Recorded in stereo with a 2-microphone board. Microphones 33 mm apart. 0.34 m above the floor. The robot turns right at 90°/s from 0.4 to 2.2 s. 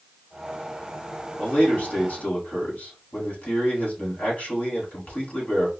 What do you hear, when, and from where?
1.4 s a man speaking: 40° left, 2.5 m; by 5.7 s 115° left, 2.5 m